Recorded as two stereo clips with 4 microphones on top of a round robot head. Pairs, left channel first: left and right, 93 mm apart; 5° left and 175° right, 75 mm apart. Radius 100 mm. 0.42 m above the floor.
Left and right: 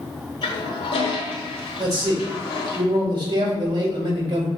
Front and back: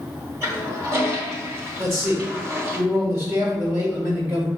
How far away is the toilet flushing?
About 1.5 m.